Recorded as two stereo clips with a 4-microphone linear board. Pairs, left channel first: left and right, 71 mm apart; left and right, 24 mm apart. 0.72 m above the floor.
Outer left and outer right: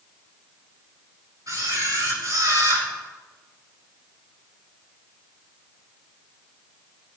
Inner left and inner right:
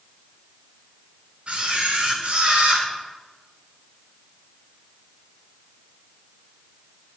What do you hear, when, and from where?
1.5 s a camera shutter: 50° right (ahead or behind), 6.5 m